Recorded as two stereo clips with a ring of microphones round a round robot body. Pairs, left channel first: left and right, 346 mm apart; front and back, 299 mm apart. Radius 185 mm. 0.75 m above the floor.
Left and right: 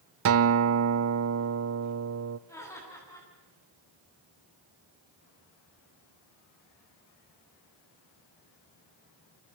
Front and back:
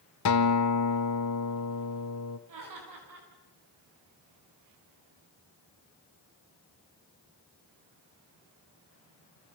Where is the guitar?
45° right, 0.6 m.